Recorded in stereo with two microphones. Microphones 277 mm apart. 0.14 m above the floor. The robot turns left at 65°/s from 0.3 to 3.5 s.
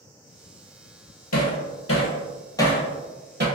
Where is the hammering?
75° left (ahead or behind), 0.8 m; by 3.5 s 40° right (ahead or behind), 0.8 m.